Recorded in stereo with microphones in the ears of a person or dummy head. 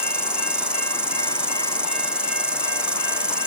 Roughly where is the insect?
Centre.